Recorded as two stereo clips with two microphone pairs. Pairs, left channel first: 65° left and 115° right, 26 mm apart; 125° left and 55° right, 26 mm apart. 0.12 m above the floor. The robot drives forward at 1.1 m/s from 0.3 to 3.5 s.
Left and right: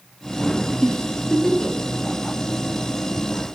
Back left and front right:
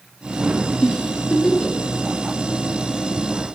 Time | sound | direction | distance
0.8 | a giggle | 95° left | 2.0 m